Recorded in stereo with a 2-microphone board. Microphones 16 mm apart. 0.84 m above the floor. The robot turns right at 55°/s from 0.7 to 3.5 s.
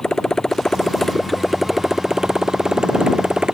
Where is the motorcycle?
140° left; by 3.5 s 65° right.